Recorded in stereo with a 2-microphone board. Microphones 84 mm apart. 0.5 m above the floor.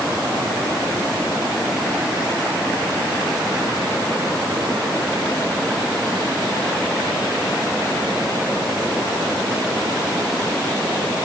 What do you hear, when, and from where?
Only background noise.